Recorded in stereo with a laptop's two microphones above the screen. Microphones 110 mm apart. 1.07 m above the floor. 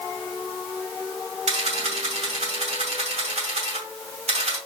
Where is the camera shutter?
70° right (ahead or behind), 2 m.